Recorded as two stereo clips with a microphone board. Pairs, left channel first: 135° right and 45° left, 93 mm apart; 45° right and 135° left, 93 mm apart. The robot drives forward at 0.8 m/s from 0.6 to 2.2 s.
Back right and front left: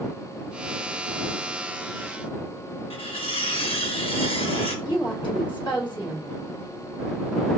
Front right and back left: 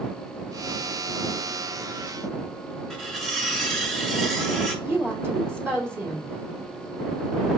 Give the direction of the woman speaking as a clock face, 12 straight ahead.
5 o'clock.